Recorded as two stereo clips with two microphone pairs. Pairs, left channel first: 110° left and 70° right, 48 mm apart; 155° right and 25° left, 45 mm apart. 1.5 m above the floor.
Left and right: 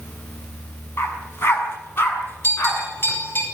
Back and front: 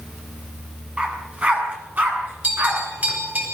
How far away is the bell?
About 9.5 m.